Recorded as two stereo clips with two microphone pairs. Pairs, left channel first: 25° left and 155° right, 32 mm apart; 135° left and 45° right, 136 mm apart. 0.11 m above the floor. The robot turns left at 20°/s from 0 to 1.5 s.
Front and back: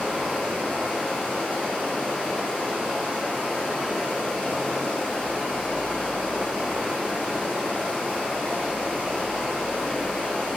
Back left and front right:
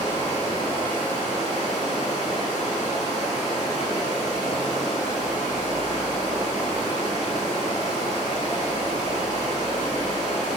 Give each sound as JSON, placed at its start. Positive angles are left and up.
{"t": 0.0, "sound": "running water", "azimuth_deg": 80, "distance_m": 1.9}